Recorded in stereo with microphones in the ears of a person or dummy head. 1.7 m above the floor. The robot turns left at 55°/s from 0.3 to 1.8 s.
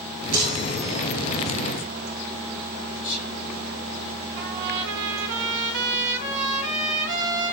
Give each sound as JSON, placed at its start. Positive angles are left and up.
{"t": 0.3, "sound": "a chime", "azimuth_deg": -120, "distance_m": 6.0}
{"t": 3.0, "sound": "whispering", "side_deg": 45, "distance_m": 5.5}
{"t": 4.4, "sound": "a trumpet", "side_deg": -65, "distance_m": 3.0}